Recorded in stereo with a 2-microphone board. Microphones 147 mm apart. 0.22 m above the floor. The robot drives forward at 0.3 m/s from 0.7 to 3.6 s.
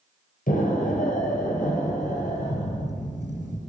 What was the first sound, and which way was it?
An explosion, 70° left (ahead or behind).